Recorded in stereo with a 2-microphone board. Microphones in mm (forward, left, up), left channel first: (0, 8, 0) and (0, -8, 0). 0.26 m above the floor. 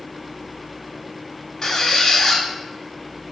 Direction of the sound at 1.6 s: 35° left (ahead or behind).